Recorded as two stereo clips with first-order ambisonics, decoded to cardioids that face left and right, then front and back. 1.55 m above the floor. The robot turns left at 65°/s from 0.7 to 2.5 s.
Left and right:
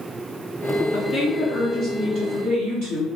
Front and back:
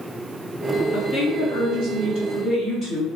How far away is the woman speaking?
About 1.7 m.